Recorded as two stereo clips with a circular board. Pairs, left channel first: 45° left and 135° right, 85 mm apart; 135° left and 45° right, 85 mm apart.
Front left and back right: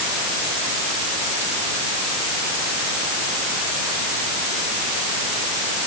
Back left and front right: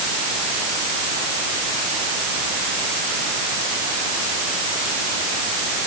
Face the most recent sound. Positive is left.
No sound to turn to.